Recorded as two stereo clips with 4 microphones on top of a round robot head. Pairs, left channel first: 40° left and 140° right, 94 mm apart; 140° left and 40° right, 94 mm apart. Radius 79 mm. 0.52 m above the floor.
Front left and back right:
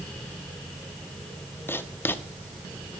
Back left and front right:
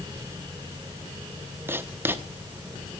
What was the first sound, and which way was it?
Writing, straight ahead.